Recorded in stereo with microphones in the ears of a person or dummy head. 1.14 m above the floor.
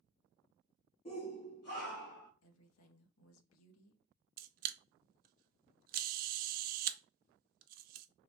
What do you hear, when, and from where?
1.1 s a shout: 30° left (ahead or behind), 0.6 m; by 2.3 s 55° left (ahead or behind), 1.2 m
2.4 s a woman speaking: 85° left, 0.8 m
4.4 s a camera shutter: 45° right (ahead or behind), 0.5 m